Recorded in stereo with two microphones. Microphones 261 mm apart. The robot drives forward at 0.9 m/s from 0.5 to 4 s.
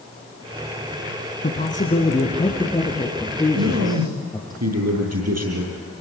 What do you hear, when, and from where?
1.4 s a man speaking: 35° left (ahead or behind), 1.7 m; by 4.5 s 15° left (ahead or behind), 3.5 m
3.5 s a man speaking: 70° right (ahead or behind), 6.5 m; by 5.8 s 75° right (ahead or behind), 6.5 m